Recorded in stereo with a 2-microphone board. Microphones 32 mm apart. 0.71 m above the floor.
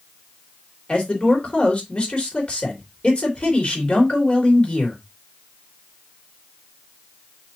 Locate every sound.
0.9 s a man speaking: 35° left (ahead or behind), 3 m